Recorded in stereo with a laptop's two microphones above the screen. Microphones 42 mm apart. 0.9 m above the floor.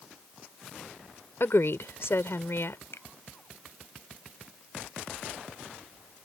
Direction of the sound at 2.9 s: 80° left.